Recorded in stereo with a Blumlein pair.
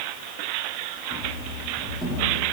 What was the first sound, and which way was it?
Running footsteps, 5° right.